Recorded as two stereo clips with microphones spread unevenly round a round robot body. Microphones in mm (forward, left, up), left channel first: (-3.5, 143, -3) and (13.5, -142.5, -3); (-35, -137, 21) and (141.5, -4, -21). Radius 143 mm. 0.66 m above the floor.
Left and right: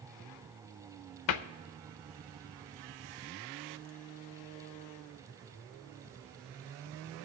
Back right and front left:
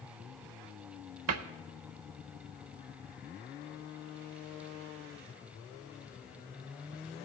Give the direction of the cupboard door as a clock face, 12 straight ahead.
10 o'clock.